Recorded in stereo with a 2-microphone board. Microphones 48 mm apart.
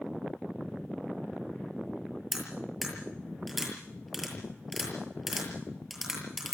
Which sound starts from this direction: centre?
Cutlery clinking, at 2.3 s.